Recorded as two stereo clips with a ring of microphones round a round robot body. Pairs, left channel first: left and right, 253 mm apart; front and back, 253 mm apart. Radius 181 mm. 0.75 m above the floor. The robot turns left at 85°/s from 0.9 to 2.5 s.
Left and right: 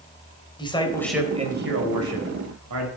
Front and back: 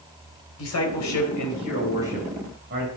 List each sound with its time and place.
0.6 s a man speaking: 20° left, 3.5 m; by 2.9 s 120° right, 3.5 m